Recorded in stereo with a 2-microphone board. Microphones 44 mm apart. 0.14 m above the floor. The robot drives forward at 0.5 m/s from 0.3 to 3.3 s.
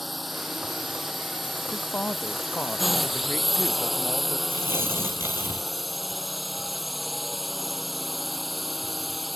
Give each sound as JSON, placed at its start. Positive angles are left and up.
{"t": 0.0, "sound": "a drone", "side_deg": 0}
{"t": 1.7, "sound": "a woman speaking", "side_deg": 50}
{"t": 4.5, "sound": "tearing paper", "side_deg": -65}